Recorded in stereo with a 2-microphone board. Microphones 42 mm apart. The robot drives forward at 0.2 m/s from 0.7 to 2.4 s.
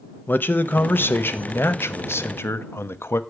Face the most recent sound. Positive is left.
turn(degrees=75)  # may be behind; listen again after turning